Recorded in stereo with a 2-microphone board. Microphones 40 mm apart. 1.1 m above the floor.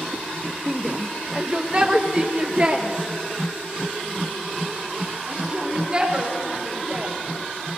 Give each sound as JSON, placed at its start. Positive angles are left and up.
{"t": 0.7, "sound": "a shout", "side_deg": 0, "distance_m": 0.5}